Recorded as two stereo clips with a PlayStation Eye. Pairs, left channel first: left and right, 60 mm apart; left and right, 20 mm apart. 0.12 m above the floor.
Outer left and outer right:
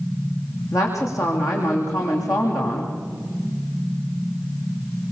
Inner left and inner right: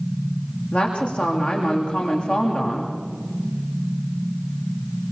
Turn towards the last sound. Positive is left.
turn(degrees=75)  # may be behind; listen again after turning